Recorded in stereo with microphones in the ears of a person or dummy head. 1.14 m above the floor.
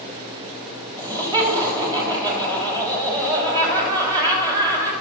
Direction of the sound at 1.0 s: 20° right (ahead or behind).